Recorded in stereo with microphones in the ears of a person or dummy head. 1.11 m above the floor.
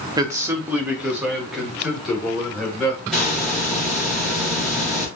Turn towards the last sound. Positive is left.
turn(degrees=0)  # may be behind; listen again after turning